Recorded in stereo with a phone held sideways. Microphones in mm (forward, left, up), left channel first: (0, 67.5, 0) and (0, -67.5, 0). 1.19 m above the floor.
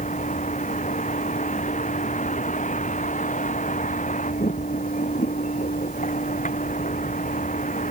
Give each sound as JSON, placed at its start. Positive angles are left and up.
{"t": 0.0, "sound": "a vehicle", "side_deg": 65}